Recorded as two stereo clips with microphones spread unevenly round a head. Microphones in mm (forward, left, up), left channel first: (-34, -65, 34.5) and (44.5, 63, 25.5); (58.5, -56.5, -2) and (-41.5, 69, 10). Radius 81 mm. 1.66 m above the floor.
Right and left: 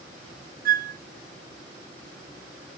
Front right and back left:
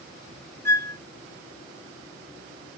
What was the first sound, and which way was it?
A flute, 25° left.